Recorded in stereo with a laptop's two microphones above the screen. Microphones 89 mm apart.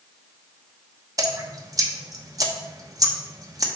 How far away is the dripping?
About 0.9 m.